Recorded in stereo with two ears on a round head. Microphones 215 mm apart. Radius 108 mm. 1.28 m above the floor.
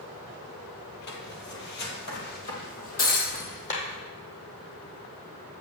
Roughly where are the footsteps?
Left.